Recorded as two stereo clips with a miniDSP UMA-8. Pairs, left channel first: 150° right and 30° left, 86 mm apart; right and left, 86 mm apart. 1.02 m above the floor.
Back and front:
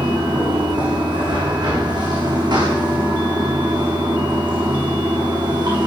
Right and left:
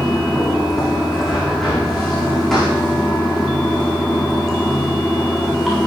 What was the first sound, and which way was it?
Running water, 5° right.